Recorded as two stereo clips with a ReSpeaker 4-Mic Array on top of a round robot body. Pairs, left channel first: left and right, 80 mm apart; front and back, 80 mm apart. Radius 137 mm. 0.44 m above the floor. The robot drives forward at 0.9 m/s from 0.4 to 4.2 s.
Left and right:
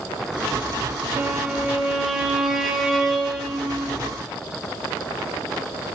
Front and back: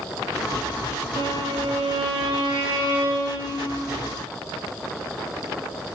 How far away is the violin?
About 0.6 m.